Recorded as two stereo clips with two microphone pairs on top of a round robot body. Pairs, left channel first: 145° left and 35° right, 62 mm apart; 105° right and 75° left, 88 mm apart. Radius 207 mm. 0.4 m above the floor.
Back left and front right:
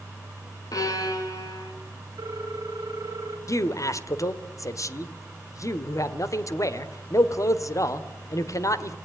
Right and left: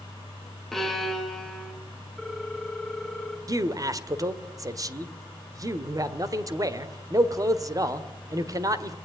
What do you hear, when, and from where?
0.7 s a violin: 165° left, 3 m
2.2 s a ringtone: 20° right, 3 m
3.5 s a man speaking: 120° left, 1.8 m